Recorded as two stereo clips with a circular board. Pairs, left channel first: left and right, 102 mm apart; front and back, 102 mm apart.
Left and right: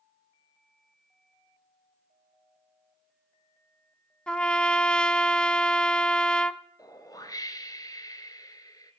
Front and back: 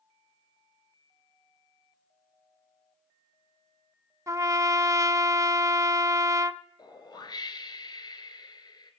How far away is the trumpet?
About 0.6 m.